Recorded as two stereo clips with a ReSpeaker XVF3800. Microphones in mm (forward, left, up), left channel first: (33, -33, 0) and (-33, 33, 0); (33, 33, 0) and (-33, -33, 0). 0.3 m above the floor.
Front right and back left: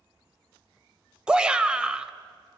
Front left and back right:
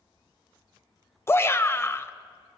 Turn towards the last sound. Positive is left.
turn(degrees=65)